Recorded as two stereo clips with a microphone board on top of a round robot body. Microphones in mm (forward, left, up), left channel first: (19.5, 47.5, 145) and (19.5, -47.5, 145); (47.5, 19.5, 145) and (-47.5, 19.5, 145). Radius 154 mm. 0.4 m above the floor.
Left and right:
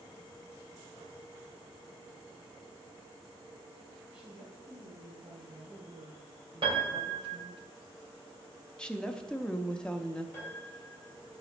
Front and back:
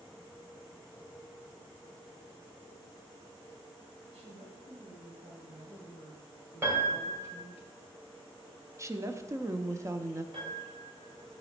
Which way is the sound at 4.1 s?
170° right.